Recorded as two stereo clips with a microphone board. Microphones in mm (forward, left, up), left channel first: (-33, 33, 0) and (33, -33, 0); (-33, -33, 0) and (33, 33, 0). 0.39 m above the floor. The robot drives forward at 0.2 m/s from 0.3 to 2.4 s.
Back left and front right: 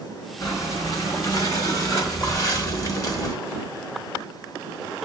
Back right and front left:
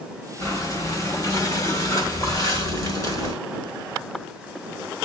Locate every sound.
0.4 s breathing: 175° left, 2 m